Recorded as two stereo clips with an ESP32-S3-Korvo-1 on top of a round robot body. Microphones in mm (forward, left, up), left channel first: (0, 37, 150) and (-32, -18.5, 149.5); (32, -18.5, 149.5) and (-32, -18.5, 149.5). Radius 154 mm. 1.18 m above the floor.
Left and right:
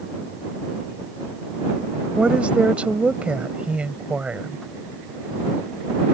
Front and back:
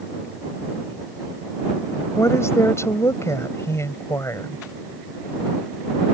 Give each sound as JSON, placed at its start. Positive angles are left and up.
{"t": 2.2, "sound": "a woman speaking", "azimuth_deg": -45}